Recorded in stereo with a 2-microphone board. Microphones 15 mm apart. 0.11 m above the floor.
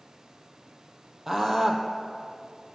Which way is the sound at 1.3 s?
25° right (ahead or behind).